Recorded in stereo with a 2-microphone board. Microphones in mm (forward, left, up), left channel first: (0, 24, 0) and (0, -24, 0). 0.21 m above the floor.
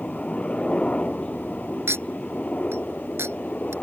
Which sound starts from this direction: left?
A helicopter, at 0.0 s.